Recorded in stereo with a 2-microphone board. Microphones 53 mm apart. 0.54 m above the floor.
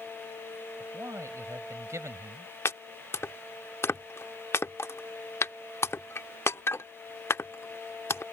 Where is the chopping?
55° left (ahead or behind).